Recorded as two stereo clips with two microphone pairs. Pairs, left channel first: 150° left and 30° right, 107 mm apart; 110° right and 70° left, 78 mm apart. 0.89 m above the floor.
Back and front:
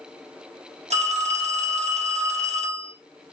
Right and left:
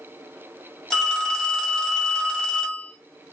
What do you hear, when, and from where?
0.9 s a phone ringing: 25° right, 1.4 m